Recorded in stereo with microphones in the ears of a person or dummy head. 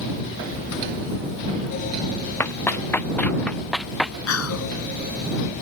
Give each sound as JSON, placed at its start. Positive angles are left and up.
{"t": 2.4, "sound": "running footsteps", "side_deg": 10}
{"t": 4.3, "sound": "whispering", "side_deg": 85}